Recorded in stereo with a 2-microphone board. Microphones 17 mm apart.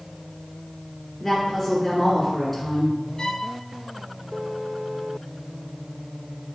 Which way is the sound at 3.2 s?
45° left (ahead or behind).